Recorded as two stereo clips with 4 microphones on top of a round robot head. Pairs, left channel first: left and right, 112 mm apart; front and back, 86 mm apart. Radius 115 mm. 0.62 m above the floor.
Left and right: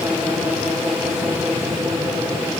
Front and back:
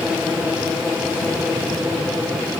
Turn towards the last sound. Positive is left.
No sound to turn to.